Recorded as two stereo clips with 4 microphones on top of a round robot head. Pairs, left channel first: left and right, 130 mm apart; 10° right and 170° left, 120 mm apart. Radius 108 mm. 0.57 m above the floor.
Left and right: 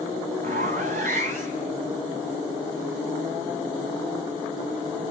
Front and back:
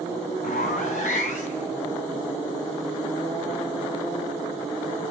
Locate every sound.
0.4 s a zipper: 50° right, 1.4 m